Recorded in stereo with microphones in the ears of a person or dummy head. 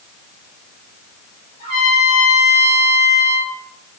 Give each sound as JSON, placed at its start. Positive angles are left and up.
{"t": 1.6, "sound": "a trumpet", "side_deg": 25, "distance_m": 2.0}